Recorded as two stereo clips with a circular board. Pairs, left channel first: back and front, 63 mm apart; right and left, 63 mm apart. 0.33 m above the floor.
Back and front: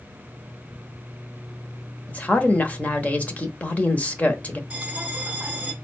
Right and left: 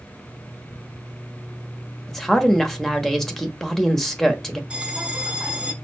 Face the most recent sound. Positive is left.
turn(degrees=40)